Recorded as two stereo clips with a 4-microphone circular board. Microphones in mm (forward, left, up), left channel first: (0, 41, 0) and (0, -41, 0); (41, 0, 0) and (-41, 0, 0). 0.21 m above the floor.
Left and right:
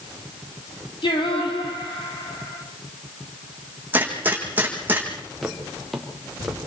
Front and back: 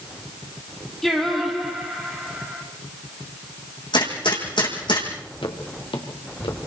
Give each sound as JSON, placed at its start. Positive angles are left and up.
{"t": 1.0, "sound": "singing", "azimuth_deg": 85, "distance_m": 4.5}
{"t": 3.9, "sound": "a gunshot", "azimuth_deg": -20, "distance_m": 5.0}
{"t": 5.4, "sound": "footsteps", "azimuth_deg": 0, "distance_m": 3.5}